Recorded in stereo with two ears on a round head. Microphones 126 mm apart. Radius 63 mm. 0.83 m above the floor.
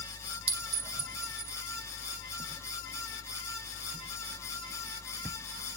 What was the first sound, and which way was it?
A clink, 85° right.